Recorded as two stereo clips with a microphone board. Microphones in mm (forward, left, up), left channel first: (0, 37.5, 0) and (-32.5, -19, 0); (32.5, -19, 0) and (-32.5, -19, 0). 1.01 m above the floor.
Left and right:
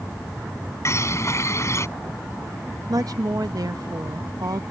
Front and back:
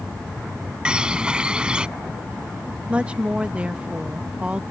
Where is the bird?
105° left.